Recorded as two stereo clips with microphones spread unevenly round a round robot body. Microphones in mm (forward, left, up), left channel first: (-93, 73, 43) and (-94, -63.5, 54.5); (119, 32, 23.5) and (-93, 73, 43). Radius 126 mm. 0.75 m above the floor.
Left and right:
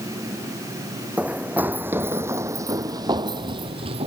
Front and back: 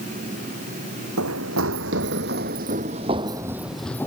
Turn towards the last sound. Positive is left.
turn(degrees=-95)